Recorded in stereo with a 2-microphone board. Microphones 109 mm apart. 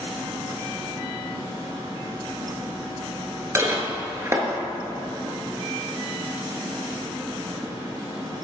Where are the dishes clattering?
25° right (ahead or behind), 1.0 m.